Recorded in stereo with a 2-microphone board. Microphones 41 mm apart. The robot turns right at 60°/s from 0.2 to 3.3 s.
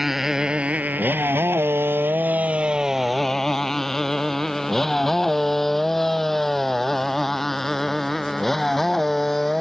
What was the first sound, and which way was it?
A motorcycle, 5° right (ahead or behind).